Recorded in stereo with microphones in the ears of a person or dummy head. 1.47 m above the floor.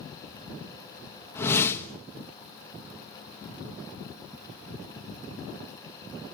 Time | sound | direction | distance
1.4 | a whoosh | 10° left (ahead or behind) | 1.4 m